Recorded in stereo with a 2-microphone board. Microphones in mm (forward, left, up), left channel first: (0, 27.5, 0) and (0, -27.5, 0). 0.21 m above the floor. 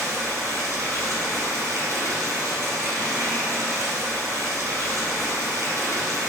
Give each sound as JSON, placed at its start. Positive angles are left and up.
{"t": 0.0, "sound": "running water", "side_deg": -60, "distance_m": 0.9}